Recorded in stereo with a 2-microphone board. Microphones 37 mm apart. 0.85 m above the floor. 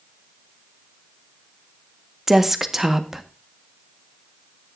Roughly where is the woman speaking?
Centre.